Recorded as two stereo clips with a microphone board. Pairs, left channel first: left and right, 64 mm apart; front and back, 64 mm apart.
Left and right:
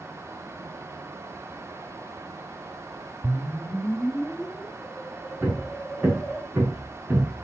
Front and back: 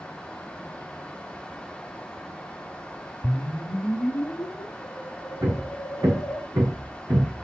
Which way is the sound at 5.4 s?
155° right.